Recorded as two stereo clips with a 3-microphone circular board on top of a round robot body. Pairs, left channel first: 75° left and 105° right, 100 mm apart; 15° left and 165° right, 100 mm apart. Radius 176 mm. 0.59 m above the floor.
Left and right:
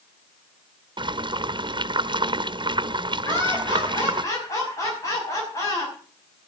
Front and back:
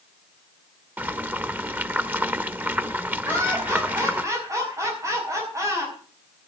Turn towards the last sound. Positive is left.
turn(degrees=135)